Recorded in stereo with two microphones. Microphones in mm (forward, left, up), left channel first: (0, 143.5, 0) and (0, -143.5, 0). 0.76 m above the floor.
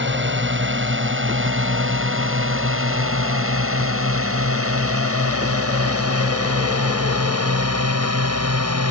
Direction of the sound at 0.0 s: 40° right (ahead or behind).